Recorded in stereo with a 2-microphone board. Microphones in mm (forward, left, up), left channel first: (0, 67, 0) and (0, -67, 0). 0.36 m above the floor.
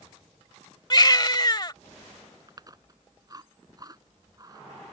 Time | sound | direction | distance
0.9 | a baby crying | 35° left (ahead or behind) | ?
2.5 | chewing | 30° right (ahead or behind) | ?